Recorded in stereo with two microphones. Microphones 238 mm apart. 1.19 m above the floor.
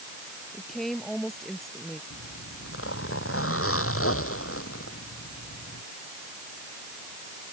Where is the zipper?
65° left (ahead or behind).